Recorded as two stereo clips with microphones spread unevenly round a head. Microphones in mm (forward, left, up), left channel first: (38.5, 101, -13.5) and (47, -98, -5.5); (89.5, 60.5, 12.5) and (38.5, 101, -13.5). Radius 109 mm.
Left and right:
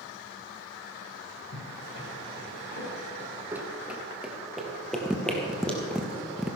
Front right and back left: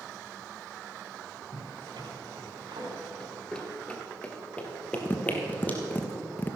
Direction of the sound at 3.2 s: 25° right.